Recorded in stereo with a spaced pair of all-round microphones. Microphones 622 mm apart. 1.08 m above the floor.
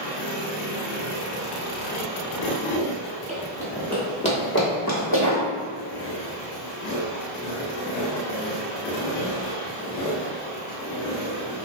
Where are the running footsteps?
10° right (ahead or behind), 1.3 m; by 5.4 s 40° left (ahead or behind), 1.3 m.